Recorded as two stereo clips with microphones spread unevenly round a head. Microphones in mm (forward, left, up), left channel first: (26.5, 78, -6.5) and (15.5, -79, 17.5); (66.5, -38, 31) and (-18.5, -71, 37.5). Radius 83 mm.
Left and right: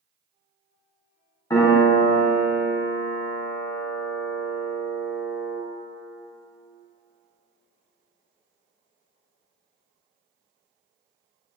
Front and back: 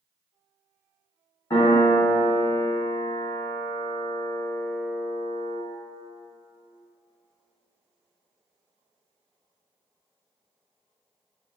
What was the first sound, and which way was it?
A piano, 25° left.